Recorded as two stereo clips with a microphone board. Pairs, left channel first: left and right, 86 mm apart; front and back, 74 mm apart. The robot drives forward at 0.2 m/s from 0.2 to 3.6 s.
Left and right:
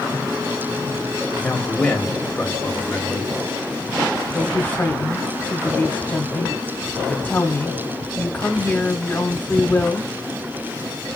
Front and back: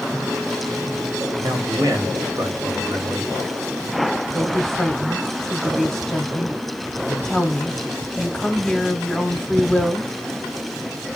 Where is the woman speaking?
75° left, 0.7 m.